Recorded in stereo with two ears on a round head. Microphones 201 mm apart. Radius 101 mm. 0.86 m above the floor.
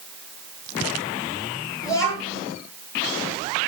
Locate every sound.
1.8 s a child speaking: 15° left (ahead or behind), 9 m